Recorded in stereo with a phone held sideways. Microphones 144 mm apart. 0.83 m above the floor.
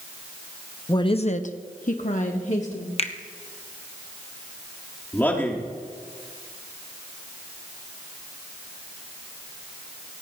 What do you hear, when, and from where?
0.9 s a woman speaking: 25° left (ahead or behind), 0.7 m; by 2.9 s 50° left (ahead or behind), 1.9 m
3.0 s a finger snap: 45° left (ahead or behind), 0.9 m
5.1 s a man speaking: 15° left (ahead or behind), 2 m